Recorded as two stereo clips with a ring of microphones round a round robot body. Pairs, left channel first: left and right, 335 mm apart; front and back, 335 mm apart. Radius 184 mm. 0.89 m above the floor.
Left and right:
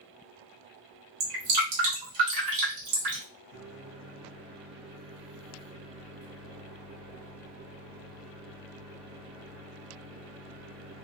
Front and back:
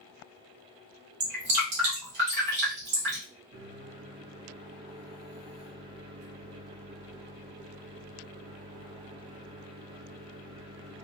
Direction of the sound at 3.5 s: 115° right.